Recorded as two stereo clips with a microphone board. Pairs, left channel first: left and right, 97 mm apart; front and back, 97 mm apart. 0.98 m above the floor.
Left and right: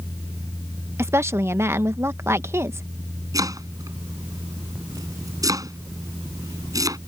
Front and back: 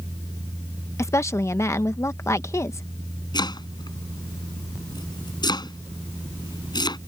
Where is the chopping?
40° right.